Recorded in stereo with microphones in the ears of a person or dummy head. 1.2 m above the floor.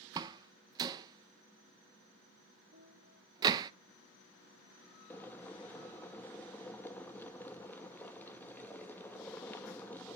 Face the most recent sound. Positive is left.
turn(degrees=15)  # may be behind; listen again after turning